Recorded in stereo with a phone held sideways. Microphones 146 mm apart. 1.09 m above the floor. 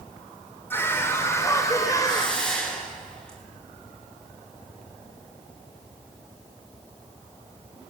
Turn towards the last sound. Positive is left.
turn(degrees=5)  # may be behind; listen again after turning